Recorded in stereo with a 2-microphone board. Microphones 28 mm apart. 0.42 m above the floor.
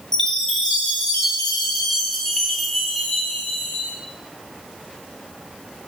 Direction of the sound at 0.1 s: 15° left (ahead or behind).